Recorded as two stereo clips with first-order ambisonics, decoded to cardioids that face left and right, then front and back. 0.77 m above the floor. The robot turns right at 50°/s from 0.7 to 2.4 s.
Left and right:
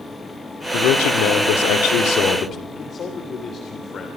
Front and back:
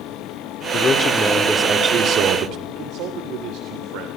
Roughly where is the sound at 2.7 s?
Behind left.